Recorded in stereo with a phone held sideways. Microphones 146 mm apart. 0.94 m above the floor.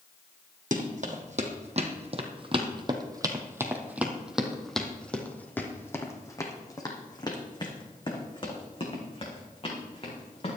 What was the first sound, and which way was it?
Running footsteps, 60° right (ahead or behind).